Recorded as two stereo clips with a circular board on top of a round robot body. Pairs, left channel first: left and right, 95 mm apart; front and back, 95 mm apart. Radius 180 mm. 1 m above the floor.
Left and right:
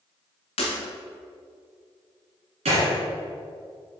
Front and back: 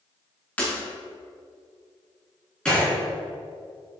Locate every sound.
0.6 s breaking glass: 75° left, 0.9 m
2.6 s a gunshot: 80° right, 2.5 m